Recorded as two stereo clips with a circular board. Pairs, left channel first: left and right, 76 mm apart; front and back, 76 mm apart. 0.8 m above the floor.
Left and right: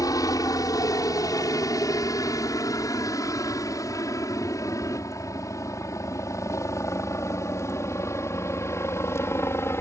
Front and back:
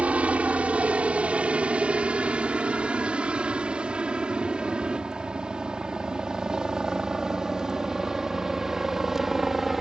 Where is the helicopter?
110° left; by 9.8 s 95° left.